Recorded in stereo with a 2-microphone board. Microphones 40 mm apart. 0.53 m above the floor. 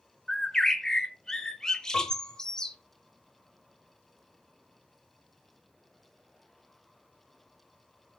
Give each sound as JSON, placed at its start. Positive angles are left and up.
{"t": 0.3, "sound": "a bird", "side_deg": 15, "distance_m": 0.8}
{"t": 1.9, "sound": "a piano", "side_deg": 40, "distance_m": 2.5}